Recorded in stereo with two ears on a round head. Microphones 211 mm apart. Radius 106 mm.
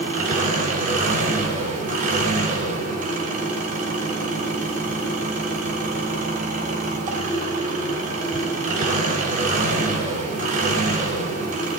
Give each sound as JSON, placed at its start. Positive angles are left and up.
{"t": 0.0, "sound": "an engine running", "side_deg": -35, "distance_m": 3.5}